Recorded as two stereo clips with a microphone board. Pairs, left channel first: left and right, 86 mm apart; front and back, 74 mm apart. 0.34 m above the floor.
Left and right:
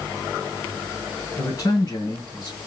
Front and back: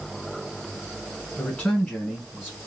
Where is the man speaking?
75° left, 1.9 m; by 2.7 s 100° left, 2 m.